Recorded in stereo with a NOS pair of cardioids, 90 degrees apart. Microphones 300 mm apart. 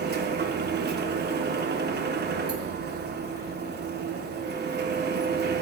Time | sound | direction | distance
0.0 | a machine running | 35° right | 0.7 m